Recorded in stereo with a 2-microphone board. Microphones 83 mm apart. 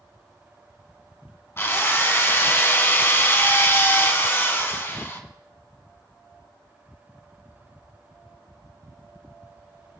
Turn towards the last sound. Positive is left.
turn(degrees=30)  # may be behind; listen again after turning